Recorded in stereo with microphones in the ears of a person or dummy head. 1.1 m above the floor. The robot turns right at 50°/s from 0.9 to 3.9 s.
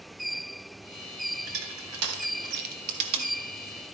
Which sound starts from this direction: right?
Crushing, at 1.4 s.